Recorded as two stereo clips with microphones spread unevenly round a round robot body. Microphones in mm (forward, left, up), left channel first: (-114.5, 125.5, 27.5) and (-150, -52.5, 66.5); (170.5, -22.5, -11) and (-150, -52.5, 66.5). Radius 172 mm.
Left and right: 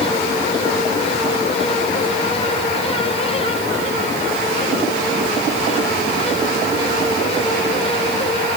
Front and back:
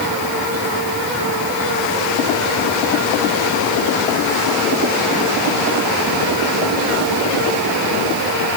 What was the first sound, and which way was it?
Only background noise.